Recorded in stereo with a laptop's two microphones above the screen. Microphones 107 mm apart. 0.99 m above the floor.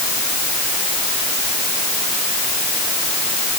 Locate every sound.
Only background noise.